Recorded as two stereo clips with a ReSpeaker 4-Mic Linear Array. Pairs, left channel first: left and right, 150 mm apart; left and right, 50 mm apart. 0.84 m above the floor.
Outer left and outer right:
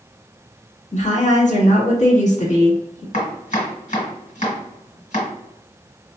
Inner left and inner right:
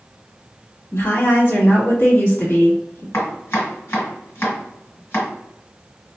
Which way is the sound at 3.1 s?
60° left (ahead or behind).